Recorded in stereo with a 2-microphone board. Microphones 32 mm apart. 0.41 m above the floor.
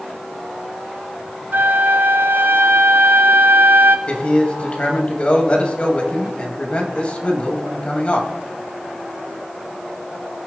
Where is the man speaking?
35° left (ahead or behind), 1.9 m.